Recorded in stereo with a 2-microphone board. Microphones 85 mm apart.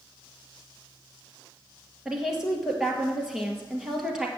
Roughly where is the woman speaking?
Centre.